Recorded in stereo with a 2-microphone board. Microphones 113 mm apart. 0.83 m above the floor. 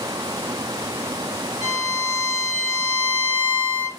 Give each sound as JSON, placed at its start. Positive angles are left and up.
{"t": 1.6, "sound": "a violin", "side_deg": -75, "distance_m": 2.5}